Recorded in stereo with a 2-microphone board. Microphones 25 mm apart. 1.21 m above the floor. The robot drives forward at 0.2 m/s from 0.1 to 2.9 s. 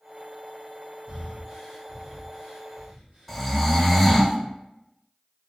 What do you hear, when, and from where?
1.1 s breathing: 55° right (ahead or behind), 1.3 m; by 3.9 s 45° right (ahead or behind), 1.5 m
3.3 s snoring: 5° left (ahead or behind), 0.5 m